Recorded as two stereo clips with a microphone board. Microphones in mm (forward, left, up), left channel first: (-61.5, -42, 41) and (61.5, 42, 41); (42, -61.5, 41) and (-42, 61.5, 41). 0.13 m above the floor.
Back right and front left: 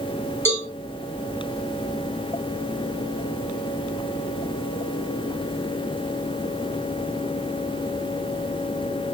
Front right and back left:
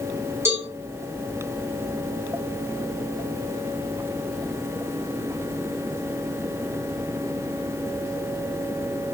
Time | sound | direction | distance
0.5 | a cowbell | 160° left | 1.6 m